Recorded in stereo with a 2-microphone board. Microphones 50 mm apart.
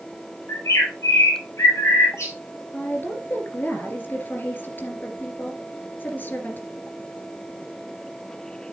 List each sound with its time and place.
0.5 s a bird: 85° left, 5.5 m
2.7 s a woman speaking: 45° left (ahead or behind), 2.5 m